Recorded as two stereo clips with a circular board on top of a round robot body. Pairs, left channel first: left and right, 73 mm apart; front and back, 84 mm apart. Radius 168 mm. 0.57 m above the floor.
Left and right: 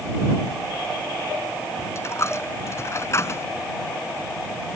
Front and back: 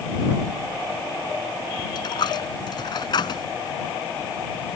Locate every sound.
1.9 s a dropped coin: 35° left